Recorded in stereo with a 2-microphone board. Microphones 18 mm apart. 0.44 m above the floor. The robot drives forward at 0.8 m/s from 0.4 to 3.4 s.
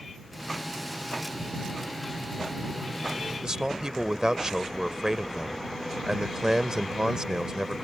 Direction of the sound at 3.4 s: 40° right (ahead or behind).